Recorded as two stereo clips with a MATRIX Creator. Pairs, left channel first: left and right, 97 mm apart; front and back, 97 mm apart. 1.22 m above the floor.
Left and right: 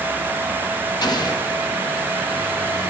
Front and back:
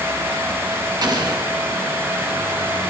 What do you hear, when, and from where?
1.0 s an explosion: 135° left, 1.7 m